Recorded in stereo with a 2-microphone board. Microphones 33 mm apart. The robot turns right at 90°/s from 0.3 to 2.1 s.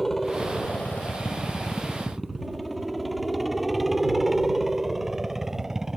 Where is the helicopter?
10° left (ahead or behind); by 6.0 s 15° right (ahead or behind).